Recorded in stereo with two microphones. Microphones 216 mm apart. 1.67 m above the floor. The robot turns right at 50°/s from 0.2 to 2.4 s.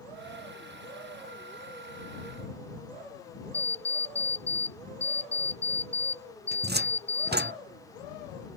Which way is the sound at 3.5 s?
30° left (ahead or behind).